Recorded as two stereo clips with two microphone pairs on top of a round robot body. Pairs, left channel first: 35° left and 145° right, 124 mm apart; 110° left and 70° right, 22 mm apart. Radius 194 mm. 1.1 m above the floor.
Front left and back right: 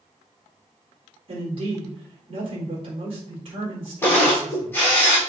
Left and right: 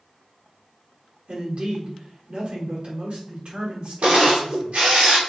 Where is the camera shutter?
40° right, 4 m.